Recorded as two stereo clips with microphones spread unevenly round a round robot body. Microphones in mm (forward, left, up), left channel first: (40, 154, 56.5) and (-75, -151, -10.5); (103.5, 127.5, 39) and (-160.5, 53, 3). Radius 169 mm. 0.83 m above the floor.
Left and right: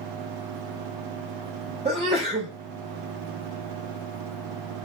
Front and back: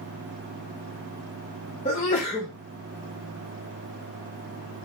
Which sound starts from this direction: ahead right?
A sneeze, at 1.9 s.